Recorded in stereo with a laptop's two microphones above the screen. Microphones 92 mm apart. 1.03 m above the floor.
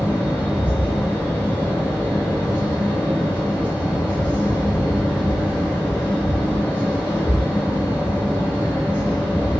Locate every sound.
0.0 s a fan: 25° left (ahead or behind), 1.2 m